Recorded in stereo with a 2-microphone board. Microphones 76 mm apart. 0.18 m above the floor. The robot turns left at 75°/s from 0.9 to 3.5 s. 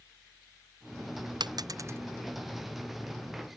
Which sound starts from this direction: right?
A dropped coin, at 1.4 s.